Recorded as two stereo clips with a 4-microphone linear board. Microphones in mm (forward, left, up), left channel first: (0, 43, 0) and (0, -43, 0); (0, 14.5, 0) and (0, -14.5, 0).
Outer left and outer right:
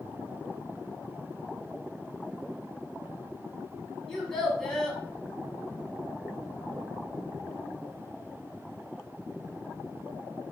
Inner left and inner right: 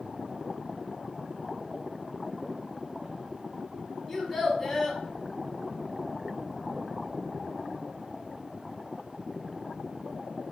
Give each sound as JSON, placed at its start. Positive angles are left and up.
{"t": 4.1, "sound": "a child speaking", "side_deg": 5, "distance_m": 0.9}